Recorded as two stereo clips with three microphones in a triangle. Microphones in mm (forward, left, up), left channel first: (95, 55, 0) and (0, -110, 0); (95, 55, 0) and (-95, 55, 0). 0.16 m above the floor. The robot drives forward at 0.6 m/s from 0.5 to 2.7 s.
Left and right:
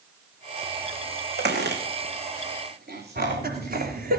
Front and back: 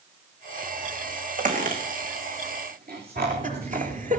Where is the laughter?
145° right, 3.5 m.